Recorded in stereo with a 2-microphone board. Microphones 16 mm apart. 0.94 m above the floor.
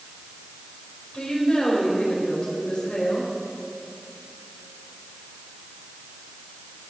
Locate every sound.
1.1 s a woman speaking: 65° left (ahead or behind), 4.5 m